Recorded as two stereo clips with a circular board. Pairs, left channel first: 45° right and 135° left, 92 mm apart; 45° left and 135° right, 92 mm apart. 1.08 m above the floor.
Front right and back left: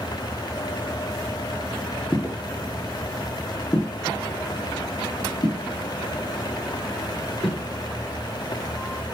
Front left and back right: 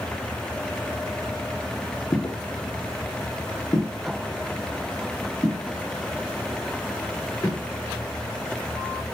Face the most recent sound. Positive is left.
turn(degrees=-10)